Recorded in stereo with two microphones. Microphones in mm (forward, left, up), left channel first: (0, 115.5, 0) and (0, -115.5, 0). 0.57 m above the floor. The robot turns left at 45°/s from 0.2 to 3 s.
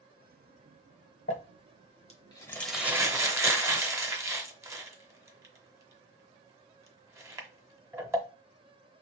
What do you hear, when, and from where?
1.3 s crumpling: 65° left (ahead or behind), 0.8 m; by 8.2 s 10° right (ahead or behind), 0.8 m